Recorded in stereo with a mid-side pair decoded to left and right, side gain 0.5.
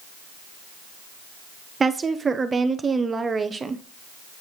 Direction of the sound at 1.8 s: 30° right.